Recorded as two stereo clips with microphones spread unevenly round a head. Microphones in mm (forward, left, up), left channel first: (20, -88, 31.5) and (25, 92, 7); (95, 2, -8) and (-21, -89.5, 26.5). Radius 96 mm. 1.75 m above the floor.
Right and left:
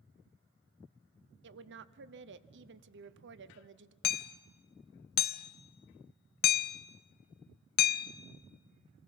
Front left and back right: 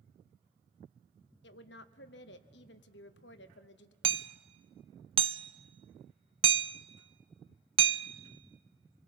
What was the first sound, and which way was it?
A woman speaking, 65° left.